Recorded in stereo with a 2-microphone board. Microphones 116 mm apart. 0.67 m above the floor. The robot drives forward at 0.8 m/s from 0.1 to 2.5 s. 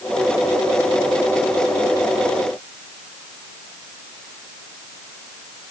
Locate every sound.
Only background noise.